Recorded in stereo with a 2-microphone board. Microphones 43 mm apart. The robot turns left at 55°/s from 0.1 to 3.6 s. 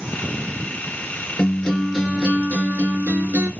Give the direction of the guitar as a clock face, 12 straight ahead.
11 o'clock.